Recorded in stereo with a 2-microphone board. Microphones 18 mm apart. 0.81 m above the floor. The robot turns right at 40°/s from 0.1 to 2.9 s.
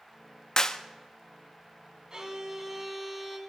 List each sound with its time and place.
0.6 s a clap: 40° left (ahead or behind), 0.8 m; by 0.8 s 45° left (ahead or behind), 0.8 m
2.1 s a violin: 30° right, 3 m; by 3.4 s straight ahead, 3 m